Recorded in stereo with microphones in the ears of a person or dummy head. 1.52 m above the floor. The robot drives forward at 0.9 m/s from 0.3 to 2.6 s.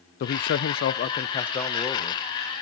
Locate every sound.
0.2 s a man speaking: 50° left (ahead or behind), 0.6 m; by 2.2 s 15° left (ahead or behind), 1.6 m